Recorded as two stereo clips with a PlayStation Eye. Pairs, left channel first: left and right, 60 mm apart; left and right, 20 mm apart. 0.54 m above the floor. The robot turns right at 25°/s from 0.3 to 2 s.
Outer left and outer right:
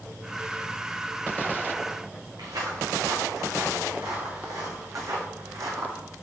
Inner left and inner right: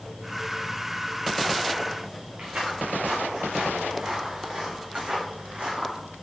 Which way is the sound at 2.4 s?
80° right.